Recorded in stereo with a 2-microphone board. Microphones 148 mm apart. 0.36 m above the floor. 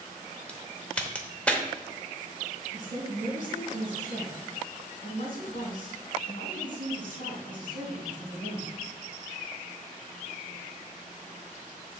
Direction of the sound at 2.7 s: 60° left (ahead or behind).